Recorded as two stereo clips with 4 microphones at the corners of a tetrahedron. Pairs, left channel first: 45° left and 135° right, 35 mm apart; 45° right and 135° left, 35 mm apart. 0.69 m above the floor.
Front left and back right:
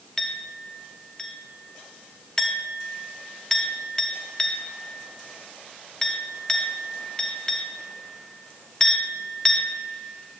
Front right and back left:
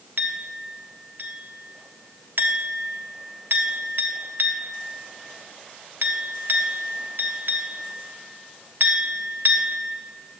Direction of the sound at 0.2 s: 120° left.